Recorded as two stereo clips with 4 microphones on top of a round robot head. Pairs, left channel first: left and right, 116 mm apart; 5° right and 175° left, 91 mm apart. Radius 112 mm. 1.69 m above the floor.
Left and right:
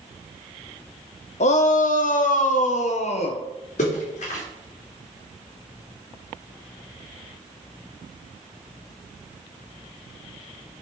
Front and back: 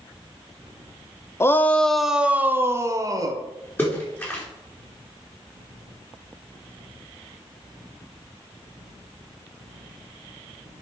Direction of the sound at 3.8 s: 60° left.